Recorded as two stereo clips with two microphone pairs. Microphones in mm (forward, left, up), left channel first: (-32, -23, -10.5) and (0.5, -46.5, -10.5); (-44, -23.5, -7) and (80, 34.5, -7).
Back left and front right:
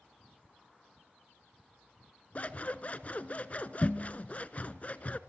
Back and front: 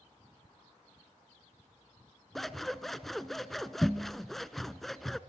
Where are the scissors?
115° left, 0.8 m.